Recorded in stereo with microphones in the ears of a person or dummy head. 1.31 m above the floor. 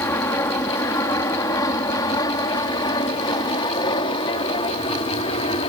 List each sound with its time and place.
0.0 s an aircraft: 20° left (ahead or behind); by 5.7 s 35° left (ahead or behind)